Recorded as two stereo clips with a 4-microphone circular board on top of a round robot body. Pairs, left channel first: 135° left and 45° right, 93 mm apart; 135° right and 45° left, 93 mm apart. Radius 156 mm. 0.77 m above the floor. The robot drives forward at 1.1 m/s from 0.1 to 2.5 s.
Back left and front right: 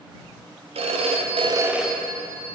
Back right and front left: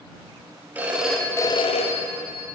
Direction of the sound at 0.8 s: 30° right.